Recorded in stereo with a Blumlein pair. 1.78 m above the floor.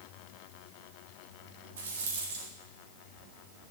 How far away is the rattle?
About 4 m.